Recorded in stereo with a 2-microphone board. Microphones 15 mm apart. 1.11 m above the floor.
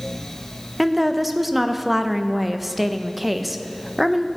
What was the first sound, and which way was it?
A woman speaking, 5° right (ahead or behind).